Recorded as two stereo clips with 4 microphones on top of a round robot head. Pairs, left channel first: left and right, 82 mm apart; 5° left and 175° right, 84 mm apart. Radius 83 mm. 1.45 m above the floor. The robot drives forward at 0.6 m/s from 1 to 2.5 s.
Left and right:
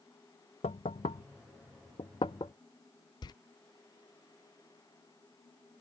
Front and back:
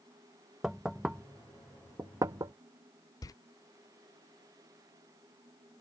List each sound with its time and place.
0.6 s knocking: 105° left; by 2.5 s 145° left
3.2 s a door slam: 55° left